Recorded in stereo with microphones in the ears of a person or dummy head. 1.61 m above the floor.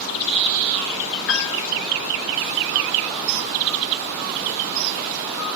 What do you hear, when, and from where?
1.3 s a piano: 65° left (ahead or behind), 1.5 m